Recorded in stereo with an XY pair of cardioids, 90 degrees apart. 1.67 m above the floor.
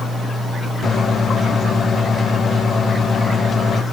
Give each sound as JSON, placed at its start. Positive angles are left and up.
{"t": 0.8, "sound": "a microwave", "azimuth_deg": 55, "distance_m": 1.6}